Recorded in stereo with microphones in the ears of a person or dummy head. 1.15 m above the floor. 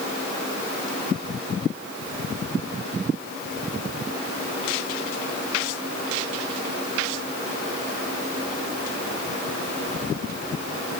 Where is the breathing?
I don't hear breathing.